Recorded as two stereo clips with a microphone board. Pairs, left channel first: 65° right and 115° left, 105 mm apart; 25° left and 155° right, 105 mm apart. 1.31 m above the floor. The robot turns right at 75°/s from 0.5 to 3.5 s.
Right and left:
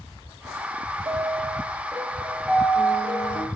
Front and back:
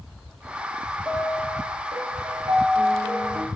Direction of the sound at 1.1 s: 100° left.